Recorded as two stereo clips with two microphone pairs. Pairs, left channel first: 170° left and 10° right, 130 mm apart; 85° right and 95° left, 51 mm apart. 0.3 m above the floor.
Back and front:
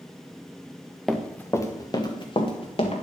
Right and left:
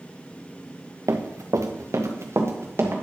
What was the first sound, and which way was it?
Running footsteps, 80° left.